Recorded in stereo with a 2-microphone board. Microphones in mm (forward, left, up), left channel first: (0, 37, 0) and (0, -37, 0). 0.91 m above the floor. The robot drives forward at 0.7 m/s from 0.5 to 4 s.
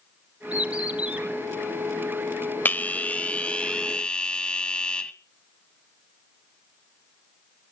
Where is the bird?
15° right (ahead or behind), 3.5 m.